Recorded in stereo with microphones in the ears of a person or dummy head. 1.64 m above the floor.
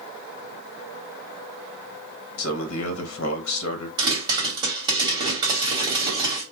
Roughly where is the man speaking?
Left.